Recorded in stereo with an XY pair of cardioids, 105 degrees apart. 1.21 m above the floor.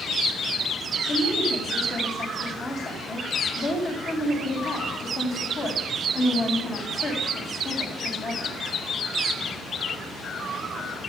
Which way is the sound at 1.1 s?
70° left.